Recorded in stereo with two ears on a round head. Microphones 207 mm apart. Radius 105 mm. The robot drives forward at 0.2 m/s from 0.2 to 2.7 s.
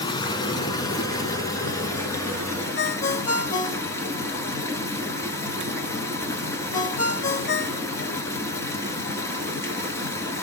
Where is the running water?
20° left (ahead or behind), 0.8 m; by 10.4 s 10° left (ahead or behind), 1.3 m.